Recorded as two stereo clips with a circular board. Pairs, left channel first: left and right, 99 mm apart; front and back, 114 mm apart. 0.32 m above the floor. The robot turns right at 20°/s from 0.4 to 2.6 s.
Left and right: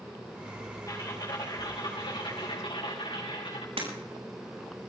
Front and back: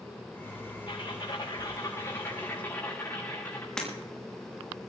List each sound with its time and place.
0.9 s typing on a keyboard: 35° left, 6.5 m; by 3.7 s 70° left, 6.5 m
3.8 s breaking glass: 85° right, 6.5 m